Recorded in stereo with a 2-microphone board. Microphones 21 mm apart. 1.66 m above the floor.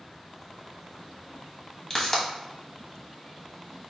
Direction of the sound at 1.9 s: 35° left (ahead or behind).